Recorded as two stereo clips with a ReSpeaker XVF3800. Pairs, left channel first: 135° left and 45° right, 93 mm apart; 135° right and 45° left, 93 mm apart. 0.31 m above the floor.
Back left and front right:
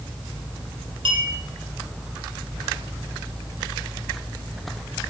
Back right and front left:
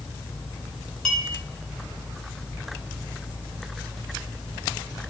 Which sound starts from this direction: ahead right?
A clink, at 1.1 s.